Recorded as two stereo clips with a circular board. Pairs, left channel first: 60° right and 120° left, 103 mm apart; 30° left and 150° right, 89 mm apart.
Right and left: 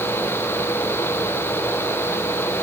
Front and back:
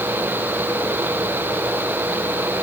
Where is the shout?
I don't hear a shout.